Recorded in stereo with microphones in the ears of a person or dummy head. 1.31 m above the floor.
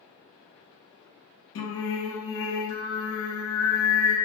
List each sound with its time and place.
1.6 s singing: 55° left (ahead or behind), 0.9 m